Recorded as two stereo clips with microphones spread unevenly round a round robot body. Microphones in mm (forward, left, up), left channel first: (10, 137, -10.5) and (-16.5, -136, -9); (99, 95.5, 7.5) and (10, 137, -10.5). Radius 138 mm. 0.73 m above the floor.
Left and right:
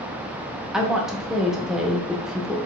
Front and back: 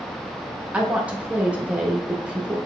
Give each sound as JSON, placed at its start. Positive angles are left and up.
{"t": 0.7, "sound": "a woman speaking", "azimuth_deg": 180, "distance_m": 0.6}